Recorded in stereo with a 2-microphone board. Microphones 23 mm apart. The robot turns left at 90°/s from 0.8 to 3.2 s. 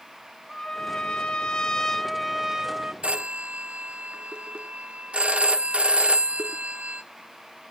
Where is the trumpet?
125° left, 0.9 m; by 2.9 s 70° right, 0.9 m.